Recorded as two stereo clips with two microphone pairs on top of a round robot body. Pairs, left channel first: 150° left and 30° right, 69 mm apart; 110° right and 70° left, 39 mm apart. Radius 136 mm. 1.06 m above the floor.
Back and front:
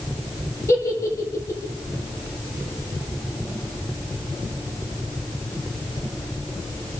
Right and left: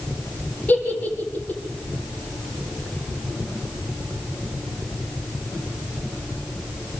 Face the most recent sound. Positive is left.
turn(degrees=-160)